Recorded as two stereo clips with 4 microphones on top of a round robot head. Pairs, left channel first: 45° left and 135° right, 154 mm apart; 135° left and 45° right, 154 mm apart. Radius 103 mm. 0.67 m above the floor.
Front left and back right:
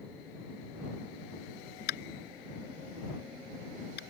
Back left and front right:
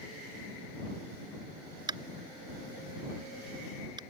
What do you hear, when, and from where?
1.9 s tapping: 20° left